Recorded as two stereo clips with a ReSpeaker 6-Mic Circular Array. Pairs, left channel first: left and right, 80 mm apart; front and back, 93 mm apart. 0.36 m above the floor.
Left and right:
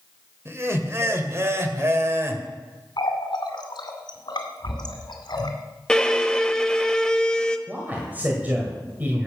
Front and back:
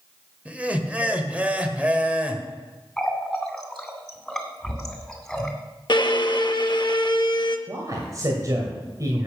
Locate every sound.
0.5 s laughter: 115° right, 1.3 m
3.0 s a running tap: 85° left, 1.9 m
5.9 s a violin: 10° left, 0.7 m
7.7 s a man speaking: 150° right, 1.9 m